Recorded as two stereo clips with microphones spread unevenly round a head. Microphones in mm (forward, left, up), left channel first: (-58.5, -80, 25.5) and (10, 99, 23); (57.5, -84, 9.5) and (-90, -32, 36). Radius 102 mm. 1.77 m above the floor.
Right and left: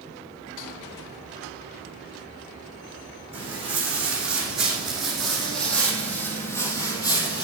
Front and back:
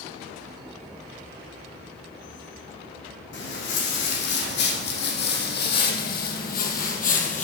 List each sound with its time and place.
3.3 s footsteps: 10° right, 4.5 m; by 7.4 s 50° right, 2.5 m